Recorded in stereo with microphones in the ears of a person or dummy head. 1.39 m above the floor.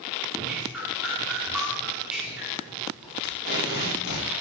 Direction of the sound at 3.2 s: 60° left (ahead or behind).